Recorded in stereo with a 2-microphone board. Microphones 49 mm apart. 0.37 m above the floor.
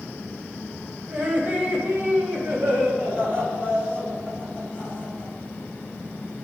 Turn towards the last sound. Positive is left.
turn(degrees=-45)  # may be behind; listen again after turning